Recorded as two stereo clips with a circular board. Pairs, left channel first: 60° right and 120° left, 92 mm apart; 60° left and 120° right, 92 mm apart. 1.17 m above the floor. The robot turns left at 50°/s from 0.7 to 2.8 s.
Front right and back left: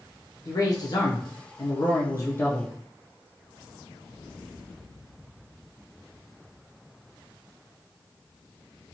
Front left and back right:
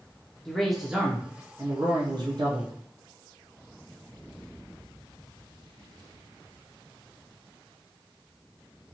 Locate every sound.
0.5 s a man speaking: 30° right, 0.5 m; by 2.7 s 130° right, 0.5 m